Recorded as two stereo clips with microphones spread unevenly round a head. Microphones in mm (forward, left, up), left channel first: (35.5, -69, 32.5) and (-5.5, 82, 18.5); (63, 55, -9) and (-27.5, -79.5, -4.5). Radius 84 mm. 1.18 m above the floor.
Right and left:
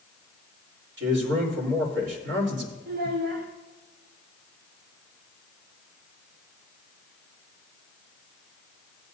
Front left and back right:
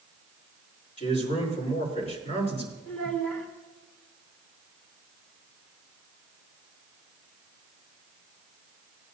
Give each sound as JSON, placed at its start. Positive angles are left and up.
{"t": 1.0, "sound": "a man speaking", "azimuth_deg": 110, "distance_m": 4.0}
{"t": 2.9, "sound": "a child speaking", "azimuth_deg": 140, "distance_m": 0.8}